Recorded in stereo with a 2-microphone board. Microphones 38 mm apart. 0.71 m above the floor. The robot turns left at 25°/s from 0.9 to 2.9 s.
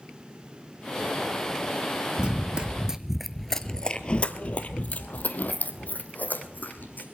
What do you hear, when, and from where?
2.2 s running footsteps: 30° right (ahead or behind), 0.8 m; by 7.0 s 50° left (ahead or behind), 2 m